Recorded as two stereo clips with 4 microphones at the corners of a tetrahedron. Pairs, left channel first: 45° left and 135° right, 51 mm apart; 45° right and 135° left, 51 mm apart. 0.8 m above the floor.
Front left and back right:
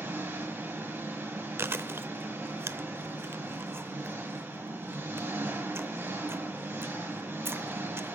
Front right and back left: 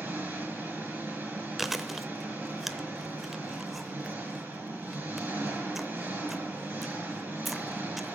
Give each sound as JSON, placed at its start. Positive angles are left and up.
{"t": 0.0, "sound": "an engine running", "azimuth_deg": 180, "distance_m": 5.5}
{"t": 1.6, "sound": "chewing", "azimuth_deg": -140, "distance_m": 0.7}